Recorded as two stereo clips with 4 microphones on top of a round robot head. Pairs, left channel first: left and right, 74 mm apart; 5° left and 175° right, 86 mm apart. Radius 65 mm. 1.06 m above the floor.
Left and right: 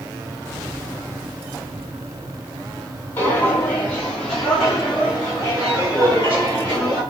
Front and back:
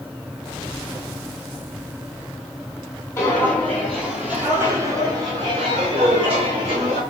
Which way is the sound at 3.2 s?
45° left.